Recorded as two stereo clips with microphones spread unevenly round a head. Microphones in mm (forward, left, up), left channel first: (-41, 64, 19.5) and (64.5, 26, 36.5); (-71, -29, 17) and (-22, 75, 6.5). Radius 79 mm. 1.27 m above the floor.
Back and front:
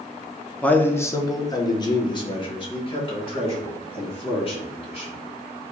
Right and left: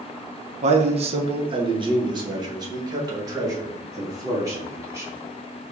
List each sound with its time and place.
0.6 s a man speaking: 85° left, 0.7 m; by 5.2 s 130° left, 3 m